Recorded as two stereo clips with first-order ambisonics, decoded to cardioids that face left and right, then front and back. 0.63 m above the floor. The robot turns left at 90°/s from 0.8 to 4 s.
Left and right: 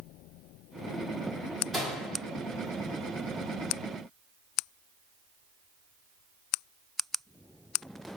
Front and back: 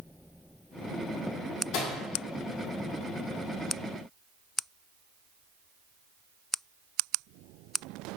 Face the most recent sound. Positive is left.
turn(degrees=150)